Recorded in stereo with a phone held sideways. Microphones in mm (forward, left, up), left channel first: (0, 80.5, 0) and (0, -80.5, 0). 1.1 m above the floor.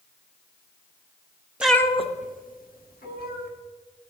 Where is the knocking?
I don't hear knocking.